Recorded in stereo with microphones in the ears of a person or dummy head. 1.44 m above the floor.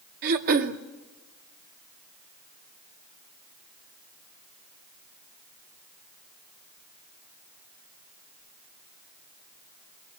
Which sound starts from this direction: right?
Throat clearing, at 0.2 s.